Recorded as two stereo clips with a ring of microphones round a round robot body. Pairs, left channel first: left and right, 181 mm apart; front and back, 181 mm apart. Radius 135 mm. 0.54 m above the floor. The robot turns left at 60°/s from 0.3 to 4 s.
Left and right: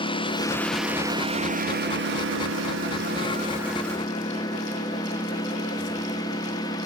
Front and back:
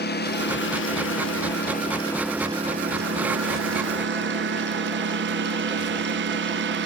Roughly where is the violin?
I don't hear a violin.